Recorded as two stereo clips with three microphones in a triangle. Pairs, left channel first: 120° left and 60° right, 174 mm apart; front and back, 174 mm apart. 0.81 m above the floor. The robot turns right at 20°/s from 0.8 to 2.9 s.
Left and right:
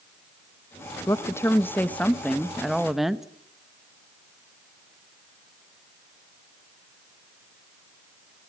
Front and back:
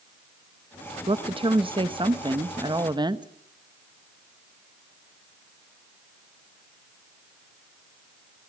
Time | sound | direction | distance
1.1 | a woman speaking | 175° left | 0.9 m